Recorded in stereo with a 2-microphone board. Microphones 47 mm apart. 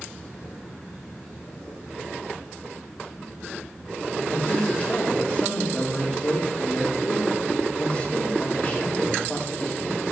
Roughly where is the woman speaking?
Left.